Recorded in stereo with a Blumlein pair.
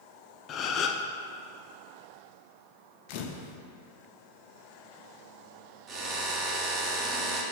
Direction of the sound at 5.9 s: 25° right.